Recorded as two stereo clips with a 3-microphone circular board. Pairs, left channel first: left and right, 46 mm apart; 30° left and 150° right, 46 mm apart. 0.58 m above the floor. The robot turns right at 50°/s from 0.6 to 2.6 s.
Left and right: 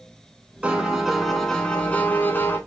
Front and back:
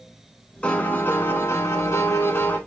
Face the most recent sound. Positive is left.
turn(degrees=65)